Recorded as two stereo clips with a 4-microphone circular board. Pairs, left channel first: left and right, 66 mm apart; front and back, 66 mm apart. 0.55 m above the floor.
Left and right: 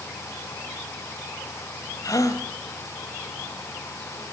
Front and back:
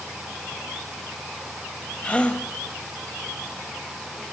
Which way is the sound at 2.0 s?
70° left.